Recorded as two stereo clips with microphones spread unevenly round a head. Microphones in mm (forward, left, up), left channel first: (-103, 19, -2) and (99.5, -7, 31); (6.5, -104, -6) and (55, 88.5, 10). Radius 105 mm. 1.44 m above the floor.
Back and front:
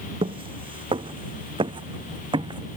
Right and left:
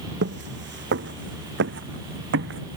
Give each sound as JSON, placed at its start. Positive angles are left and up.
{"t": 0.2, "sound": "footsteps", "azimuth_deg": 50}